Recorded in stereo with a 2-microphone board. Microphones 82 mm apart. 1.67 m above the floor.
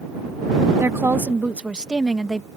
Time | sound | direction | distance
0.8 | a woman speaking | 35° right (ahead or behind) | ?